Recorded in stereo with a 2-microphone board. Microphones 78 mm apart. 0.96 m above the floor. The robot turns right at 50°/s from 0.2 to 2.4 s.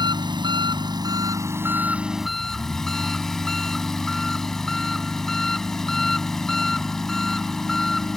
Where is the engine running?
105° right; by 8.2 s 5° left.